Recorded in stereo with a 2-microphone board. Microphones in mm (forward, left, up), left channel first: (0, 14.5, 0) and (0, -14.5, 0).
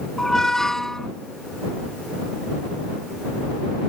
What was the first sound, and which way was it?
A squeak, 15° left (ahead or behind).